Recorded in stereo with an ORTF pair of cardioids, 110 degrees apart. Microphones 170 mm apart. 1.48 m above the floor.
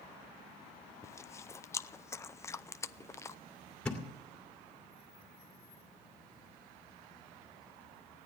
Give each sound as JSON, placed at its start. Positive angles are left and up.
{"t": 1.0, "sound": "chewing", "azimuth_deg": 15, "distance_m": 0.5}
{"t": 3.9, "sound": "a thud", "azimuth_deg": 5, "distance_m": 2.5}